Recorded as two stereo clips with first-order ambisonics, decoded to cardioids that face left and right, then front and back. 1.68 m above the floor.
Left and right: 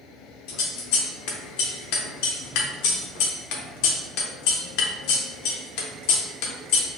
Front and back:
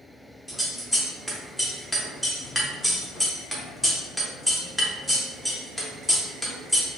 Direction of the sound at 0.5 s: 90° left.